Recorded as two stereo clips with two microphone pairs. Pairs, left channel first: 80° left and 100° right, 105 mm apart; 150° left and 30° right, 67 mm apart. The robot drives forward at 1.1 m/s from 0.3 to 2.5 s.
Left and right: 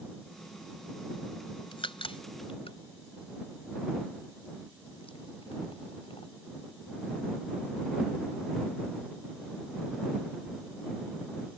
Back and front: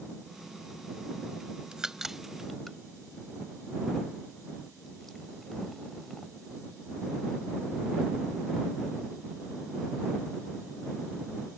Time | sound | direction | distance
1.7 | a crack | 50° left | ?